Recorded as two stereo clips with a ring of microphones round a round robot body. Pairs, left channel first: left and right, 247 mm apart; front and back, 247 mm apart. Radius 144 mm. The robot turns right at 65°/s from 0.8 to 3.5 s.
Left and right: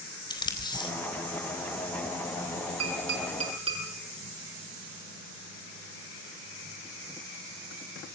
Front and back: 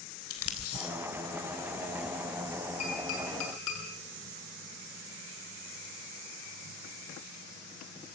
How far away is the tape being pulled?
About 3.5 m.